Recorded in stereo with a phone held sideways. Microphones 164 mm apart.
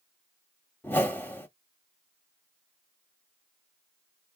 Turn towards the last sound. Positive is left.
turn(degrees=10)  # may be behind; listen again after turning